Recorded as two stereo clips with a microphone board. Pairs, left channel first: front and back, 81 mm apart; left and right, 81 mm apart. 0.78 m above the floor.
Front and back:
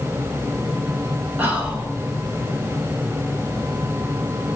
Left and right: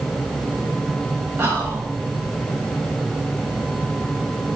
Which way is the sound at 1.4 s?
125° right.